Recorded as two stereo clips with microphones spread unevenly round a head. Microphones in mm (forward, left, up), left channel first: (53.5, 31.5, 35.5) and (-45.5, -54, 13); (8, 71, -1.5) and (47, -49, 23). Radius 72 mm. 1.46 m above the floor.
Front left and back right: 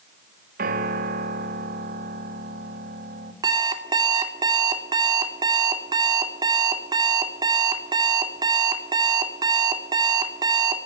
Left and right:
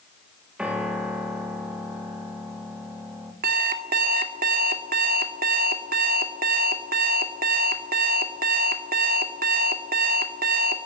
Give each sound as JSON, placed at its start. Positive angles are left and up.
{"t": 0.6, "sound": "a piano", "azimuth_deg": -155, "distance_m": 3.5}
{"t": 3.4, "sound": "an alarm clock", "azimuth_deg": -75, "distance_m": 2.5}